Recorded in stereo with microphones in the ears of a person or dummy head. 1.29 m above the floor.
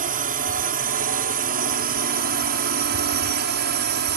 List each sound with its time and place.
0.0 s a drone: 45° right (ahead or behind); by 4.2 s 55° right (ahead or behind)